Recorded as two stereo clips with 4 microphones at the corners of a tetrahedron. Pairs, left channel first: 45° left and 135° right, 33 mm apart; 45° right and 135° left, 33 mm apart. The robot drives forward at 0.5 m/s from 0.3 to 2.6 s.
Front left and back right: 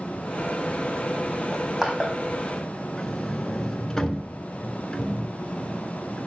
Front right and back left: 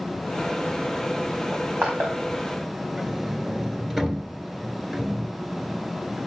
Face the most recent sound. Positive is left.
turn(degrees=75)